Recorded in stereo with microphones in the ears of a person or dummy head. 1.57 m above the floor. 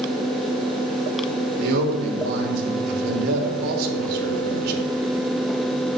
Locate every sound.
1.6 s a man speaking: 60° right (ahead or behind), 3 m